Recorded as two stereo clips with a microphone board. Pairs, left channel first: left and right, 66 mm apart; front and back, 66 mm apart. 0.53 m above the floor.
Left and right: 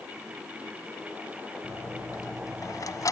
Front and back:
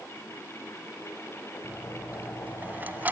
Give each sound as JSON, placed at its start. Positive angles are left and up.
{"t": 1.6, "sound": "a dropped coin", "azimuth_deg": 120, "distance_m": 1.6}